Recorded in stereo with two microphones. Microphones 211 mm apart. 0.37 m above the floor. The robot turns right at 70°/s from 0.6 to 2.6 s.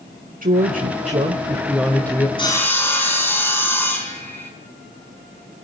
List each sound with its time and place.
0.4 s a woman speaking: 90° right, 1.2 m; by 2.3 s 25° left, 1.2 m
2.4 s sawing: 25° left (ahead or behind), 4 m; by 4.5 s 10° left (ahead or behind), 4 m